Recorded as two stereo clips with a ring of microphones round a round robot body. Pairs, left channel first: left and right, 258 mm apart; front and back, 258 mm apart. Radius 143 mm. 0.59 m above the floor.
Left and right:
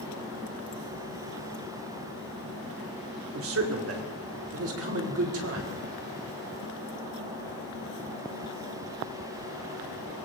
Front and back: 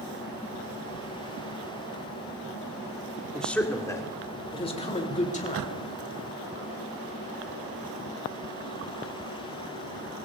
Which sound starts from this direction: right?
A man speaking, at 3.3 s.